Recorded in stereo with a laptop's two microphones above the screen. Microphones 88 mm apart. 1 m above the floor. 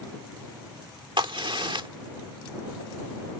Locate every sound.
1.2 s a crack: 75° right (ahead or behind)